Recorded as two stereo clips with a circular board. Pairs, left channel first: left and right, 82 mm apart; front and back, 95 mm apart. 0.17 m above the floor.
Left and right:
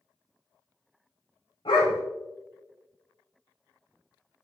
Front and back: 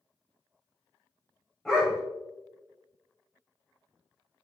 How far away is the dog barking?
About 3 m.